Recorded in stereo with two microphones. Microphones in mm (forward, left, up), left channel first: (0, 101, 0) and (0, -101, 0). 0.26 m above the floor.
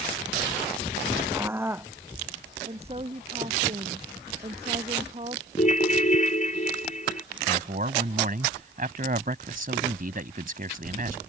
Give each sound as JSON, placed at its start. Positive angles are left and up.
{"t": 1.3, "sound": "a scream", "side_deg": -10}
{"t": 2.6, "sound": "a woman speaking", "side_deg": -30}
{"t": 5.6, "sound": "a ringtone", "side_deg": 40}
{"t": 7.5, "sound": "a man speaking", "side_deg": -45}